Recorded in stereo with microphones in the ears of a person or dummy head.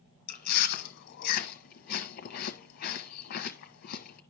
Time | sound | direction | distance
0.3 | chewing | 50° left (ahead or behind) | 0.9 m